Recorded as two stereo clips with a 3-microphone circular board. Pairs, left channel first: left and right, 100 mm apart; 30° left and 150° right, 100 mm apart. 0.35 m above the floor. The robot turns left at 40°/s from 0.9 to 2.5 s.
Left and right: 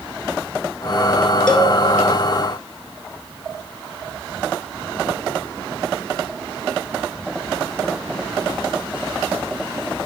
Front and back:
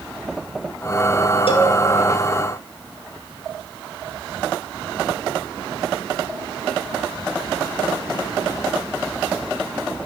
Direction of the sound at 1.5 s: 10° left.